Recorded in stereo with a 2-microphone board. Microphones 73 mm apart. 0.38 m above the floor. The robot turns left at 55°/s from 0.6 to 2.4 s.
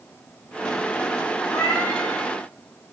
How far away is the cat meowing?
About 3.5 m.